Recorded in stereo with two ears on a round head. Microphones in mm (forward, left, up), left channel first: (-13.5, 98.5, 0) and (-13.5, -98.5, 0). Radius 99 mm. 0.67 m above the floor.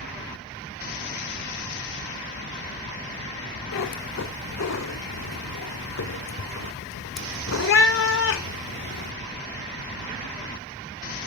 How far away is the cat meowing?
About 1.0 m.